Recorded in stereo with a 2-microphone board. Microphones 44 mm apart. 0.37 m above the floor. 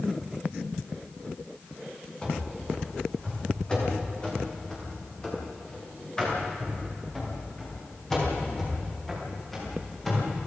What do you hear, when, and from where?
2.2 s running footsteps: 20° left (ahead or behind), 8.5 m; by 10.4 s 5° left (ahead or behind), 14 m